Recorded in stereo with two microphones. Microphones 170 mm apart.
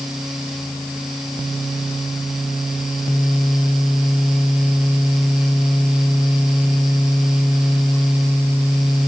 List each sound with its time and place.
Only background noise.